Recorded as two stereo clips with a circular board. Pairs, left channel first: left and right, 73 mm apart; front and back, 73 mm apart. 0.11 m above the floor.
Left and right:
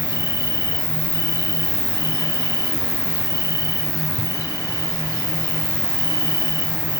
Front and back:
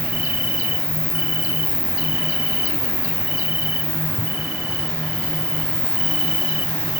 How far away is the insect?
About 4 m.